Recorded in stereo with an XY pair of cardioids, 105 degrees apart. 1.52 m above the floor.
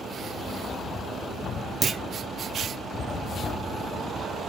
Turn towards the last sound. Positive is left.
turn(degrees=-35)